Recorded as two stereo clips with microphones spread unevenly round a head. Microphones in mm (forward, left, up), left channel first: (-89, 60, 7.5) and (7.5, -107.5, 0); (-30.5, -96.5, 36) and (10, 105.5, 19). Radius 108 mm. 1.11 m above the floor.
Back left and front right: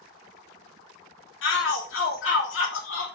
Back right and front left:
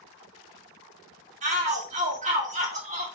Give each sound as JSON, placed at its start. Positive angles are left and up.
{"t": 1.4, "sound": "a shout", "azimuth_deg": 130, "distance_m": 4.0}